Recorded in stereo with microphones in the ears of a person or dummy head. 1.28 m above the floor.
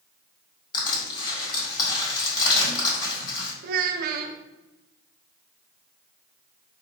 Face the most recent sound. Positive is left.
turn(degrees=-55)  # may be behind; listen again after turning